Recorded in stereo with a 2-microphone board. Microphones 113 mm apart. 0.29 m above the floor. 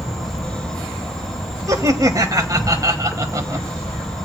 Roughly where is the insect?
Centre.